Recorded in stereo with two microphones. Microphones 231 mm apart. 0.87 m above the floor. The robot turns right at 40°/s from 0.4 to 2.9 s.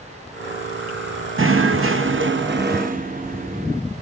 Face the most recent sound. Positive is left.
turn(degrees=-45)